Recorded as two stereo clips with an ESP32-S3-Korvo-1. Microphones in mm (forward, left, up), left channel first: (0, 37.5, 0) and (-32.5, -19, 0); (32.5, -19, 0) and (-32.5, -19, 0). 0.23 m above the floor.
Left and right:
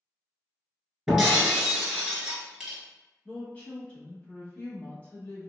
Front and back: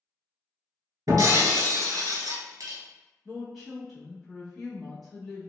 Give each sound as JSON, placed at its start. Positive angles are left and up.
{"t": 1.1, "sound": "breaking glass", "azimuth_deg": 160, "distance_m": 0.9}
{"t": 3.2, "sound": "a woman speaking", "azimuth_deg": 85, "distance_m": 1.0}